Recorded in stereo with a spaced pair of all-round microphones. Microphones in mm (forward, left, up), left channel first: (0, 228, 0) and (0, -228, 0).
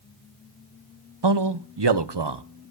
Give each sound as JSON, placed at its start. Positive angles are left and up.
{"t": 1.2, "sound": "a man speaking", "side_deg": -60, "distance_m": 0.9}